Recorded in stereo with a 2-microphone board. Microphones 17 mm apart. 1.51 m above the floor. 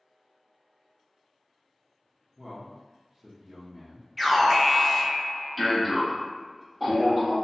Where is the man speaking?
25° right (ahead or behind), 0.7 m.